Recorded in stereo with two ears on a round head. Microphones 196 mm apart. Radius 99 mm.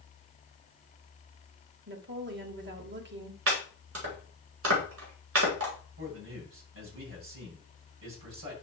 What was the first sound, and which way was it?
A woman speaking, 55° right (ahead or behind).